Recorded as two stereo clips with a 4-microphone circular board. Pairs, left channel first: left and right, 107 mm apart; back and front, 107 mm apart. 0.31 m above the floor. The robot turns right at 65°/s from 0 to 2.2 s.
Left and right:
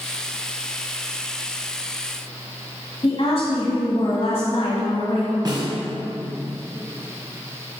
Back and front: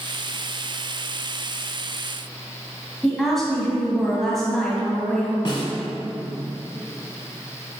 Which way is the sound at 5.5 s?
140° right.